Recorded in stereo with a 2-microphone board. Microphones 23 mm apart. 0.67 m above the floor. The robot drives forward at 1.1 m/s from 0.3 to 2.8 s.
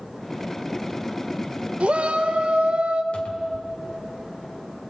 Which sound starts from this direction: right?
A shout, at 1.8 s.